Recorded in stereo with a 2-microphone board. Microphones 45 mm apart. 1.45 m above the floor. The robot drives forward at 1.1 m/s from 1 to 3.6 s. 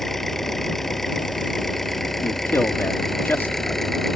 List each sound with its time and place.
0.0 s an engine running: 5° left (ahead or behind)
2.2 s a man speaking: 70° left (ahead or behind); by 3.8 s 50° left (ahead or behind)